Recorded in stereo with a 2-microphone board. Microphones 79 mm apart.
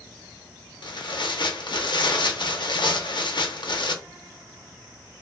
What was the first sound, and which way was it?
Tearing paper, 75° left (ahead or behind).